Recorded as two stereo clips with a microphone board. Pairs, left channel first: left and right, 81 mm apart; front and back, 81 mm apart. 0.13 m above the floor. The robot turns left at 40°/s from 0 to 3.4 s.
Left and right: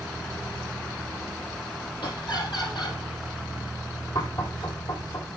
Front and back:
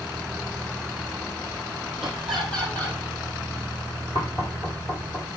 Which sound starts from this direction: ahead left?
Knocking, at 4.2 s.